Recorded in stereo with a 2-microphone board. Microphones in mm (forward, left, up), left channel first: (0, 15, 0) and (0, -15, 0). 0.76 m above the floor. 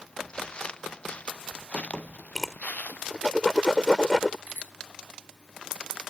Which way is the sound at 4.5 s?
80° right.